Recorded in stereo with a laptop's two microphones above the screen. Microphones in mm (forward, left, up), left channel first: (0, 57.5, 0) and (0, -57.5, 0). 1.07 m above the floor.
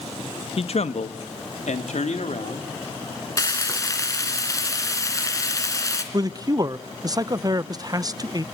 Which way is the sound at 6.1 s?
35° right (ahead or behind).